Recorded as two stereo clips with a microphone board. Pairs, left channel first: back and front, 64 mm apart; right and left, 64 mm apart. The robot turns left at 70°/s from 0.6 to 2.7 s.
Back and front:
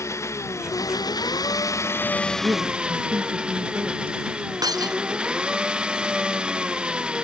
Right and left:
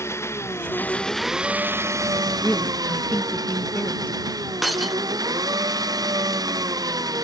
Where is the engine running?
135° right; by 7.2 s 75° left.